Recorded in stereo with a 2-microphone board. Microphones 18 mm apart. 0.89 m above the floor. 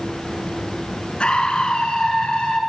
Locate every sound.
1.2 s a scream: 65° left (ahead or behind), 6.5 m